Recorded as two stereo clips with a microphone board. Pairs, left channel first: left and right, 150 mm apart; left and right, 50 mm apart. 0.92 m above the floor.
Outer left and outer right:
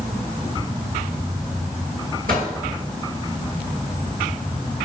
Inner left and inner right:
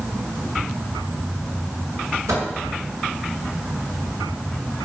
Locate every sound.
2.3 s a microwave: 80° right, 7.5 m